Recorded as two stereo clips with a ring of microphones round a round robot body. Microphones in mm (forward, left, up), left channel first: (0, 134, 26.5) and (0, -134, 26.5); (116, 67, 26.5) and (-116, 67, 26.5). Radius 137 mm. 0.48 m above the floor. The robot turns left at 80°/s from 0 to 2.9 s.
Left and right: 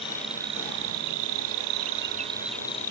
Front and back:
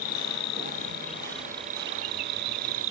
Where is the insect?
20° left; by 2.9 s 150° left.